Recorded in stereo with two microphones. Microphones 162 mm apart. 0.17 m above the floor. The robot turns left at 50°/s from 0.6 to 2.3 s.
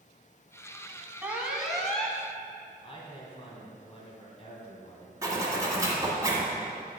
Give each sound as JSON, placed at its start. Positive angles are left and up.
{"t": 1.2, "sound": "an alarm", "side_deg": -10, "distance_m": 0.7}
{"t": 2.8, "sound": "a man speaking", "side_deg": 35, "distance_m": 2.0}
{"t": 5.2, "sound": "a zipper", "side_deg": -20, "distance_m": 1.5}